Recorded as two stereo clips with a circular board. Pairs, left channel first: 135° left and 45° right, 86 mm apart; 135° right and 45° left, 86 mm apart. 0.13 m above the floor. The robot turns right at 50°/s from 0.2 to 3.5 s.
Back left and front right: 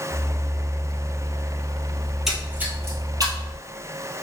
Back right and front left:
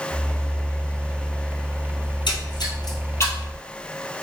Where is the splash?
140° right, 1.2 m; by 3.6 s 70° right, 1.2 m.